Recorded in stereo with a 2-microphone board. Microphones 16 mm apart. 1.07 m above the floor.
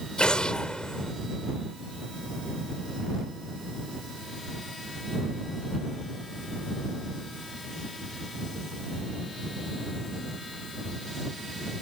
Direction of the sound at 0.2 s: 85° left.